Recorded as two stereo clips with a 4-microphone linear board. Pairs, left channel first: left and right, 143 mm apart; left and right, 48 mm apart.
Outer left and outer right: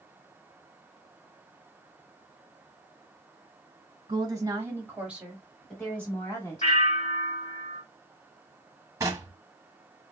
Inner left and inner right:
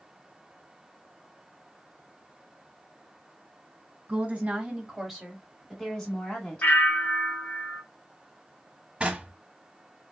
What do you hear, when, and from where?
4.1 s a woman speaking: 30° right (ahead or behind), 1.5 m; by 6.7 s 25° left (ahead or behind), 1.4 m
6.6 s a bell: 50° left (ahead or behind), 1.5 m
9.0 s knocking: 25° right (ahead or behind), 0.9 m